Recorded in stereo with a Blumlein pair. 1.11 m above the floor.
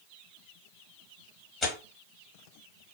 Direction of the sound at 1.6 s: 25° left.